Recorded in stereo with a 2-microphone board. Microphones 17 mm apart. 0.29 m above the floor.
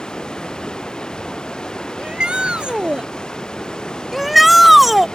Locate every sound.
0.0 s running water: 50° left (ahead or behind)
2.0 s a shout: 65° right (ahead or behind)
4.1 s a shout: 10° right (ahead or behind)